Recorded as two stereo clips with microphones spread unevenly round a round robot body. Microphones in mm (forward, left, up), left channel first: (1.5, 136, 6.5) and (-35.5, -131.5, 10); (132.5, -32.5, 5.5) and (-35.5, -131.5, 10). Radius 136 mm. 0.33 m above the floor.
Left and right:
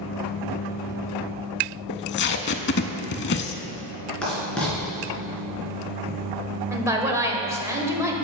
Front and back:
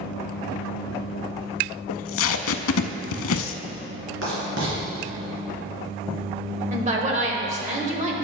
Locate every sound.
1.9 s tape being pulled: 30° left, 0.5 m
4.2 s writing: 170° left, 3 m
6.7 s a woman speaking: 170° right, 1.1 m